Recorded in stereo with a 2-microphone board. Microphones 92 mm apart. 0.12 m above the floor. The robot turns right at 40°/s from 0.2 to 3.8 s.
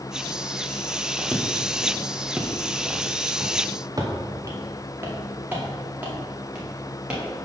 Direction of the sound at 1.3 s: 5° left (ahead or behind).